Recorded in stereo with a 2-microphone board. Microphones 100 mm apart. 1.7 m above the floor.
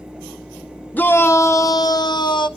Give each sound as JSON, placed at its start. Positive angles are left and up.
{"t": 0.9, "sound": "a shout", "side_deg": 15, "distance_m": 1.0}